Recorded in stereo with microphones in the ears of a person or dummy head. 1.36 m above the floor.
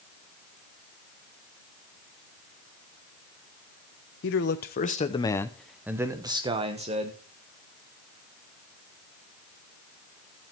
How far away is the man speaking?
About 1.0 m.